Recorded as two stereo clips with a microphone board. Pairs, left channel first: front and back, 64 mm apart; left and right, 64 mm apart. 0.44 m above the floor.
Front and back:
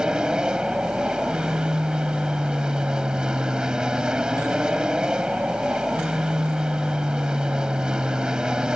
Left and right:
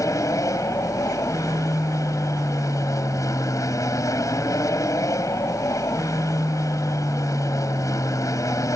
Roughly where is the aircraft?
Left.